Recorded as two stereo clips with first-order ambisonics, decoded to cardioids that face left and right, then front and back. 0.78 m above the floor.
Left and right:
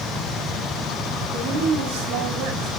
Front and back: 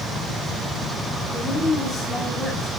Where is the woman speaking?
85° right, 6 m.